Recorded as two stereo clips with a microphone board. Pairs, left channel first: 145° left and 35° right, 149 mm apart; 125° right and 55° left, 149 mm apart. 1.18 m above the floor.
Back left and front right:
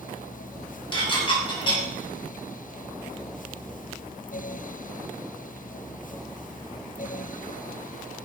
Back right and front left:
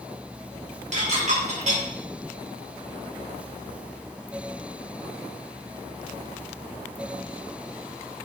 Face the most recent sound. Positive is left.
turn(degrees=90)